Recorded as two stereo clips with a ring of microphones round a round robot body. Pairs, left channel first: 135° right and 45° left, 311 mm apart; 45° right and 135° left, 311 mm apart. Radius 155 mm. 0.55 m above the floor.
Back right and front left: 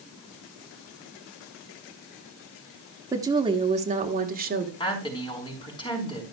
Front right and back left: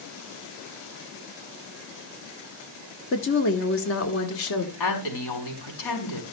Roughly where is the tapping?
No tapping in this recording.